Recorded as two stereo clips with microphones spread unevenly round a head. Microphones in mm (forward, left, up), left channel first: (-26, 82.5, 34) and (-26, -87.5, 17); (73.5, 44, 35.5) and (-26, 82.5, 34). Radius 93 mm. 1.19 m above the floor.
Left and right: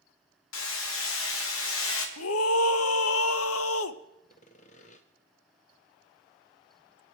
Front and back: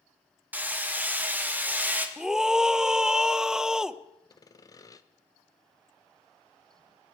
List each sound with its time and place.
0.5 s hammering: 85° left, 1.6 m
2.2 s a scream: 75° left, 0.7 m
4.3 s sawing: 35° left, 0.8 m